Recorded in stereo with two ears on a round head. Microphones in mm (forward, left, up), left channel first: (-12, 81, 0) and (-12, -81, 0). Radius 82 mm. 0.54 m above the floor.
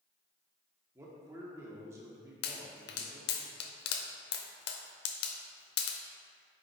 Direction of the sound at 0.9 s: 15° right (ahead or behind).